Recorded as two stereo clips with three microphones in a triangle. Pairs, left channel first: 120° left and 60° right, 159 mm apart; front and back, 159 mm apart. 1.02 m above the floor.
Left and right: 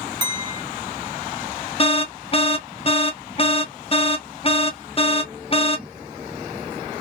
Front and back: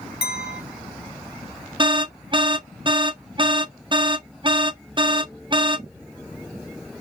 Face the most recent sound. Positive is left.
turn(degrees=140)